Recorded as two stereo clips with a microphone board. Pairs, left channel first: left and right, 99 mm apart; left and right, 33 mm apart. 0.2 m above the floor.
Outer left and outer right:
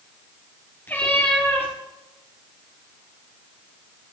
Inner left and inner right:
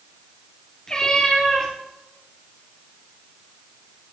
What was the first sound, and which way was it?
A cat meowing, 20° left (ahead or behind).